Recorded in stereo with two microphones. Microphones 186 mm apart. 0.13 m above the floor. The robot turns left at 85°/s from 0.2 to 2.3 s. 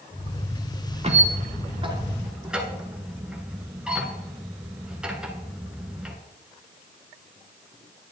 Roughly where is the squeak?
Right.